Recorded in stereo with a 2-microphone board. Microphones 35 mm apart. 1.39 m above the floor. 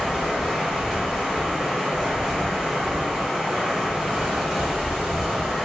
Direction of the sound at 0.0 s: 15° right (ahead or behind).